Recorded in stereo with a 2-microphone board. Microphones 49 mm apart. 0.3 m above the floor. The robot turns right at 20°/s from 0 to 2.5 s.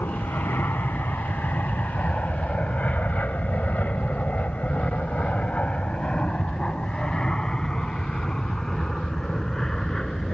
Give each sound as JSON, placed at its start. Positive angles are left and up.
{"t": 0.0, "sound": "an aircraft", "side_deg": 60}